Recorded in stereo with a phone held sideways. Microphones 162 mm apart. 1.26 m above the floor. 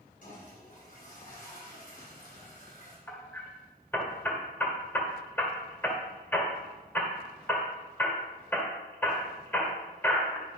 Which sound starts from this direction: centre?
Hammering, at 3.1 s.